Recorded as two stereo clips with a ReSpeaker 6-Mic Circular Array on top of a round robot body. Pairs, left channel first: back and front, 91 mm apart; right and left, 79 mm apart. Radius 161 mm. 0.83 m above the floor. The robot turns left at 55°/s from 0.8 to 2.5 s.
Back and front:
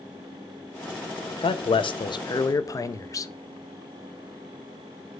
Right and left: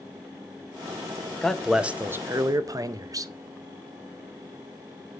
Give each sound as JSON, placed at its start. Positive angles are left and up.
{"t": 1.4, "sound": "a man speaking", "azimuth_deg": -170, "distance_m": 0.8}